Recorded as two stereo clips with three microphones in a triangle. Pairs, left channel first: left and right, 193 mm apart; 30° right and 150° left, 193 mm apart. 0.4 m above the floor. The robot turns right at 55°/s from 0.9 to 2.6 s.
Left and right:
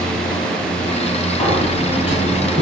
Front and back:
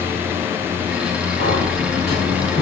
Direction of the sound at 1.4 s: 150° left.